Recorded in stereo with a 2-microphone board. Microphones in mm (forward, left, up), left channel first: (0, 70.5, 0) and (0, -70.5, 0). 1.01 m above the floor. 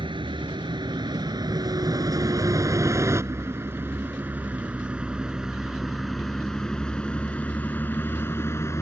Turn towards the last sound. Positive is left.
turn(degrees=20)  # may be behind; listen again after turning